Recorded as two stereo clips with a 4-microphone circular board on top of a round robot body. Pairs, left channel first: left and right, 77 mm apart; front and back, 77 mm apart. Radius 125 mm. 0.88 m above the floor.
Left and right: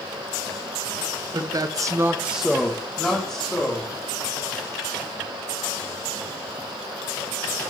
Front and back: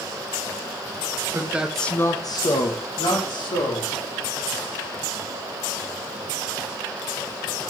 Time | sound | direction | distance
1.3 | a man speaking | 120° right | 0.9 m